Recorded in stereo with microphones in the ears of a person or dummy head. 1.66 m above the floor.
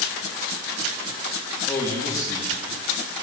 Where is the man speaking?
20° left (ahead or behind), 3 m.